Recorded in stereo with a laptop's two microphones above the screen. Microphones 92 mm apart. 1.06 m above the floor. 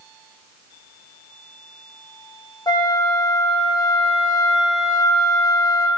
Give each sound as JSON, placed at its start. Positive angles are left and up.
{"t": 2.7, "sound": "a flute", "side_deg": 50, "distance_m": 1.0}